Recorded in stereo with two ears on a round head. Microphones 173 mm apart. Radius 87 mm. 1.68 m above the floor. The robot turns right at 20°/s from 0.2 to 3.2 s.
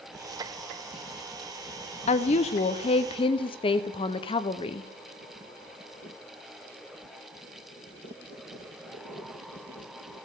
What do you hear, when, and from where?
2.1 s a woman speaking: 35° left (ahead or behind), 0.5 m; by 4.9 s 25° left (ahead or behind), 0.5 m